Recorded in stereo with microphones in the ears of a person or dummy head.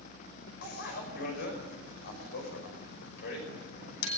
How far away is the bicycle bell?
About 5.5 m.